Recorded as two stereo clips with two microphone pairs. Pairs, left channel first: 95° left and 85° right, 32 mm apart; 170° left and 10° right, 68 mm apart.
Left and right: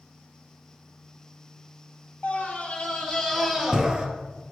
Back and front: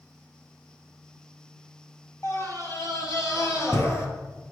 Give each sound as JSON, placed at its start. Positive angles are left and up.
{"t": 2.2, "sound": "a scream", "azimuth_deg": 135, "distance_m": 2.5}